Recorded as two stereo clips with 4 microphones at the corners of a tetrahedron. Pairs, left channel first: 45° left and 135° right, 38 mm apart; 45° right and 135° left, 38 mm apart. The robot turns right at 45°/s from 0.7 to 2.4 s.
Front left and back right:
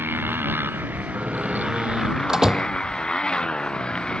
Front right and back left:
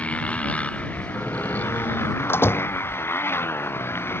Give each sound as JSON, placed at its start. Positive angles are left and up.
{"t": 0.0, "sound": "a motorcycle", "azimuth_deg": -100}
{"t": 1.1, "sound": "a door slam", "azimuth_deg": -115}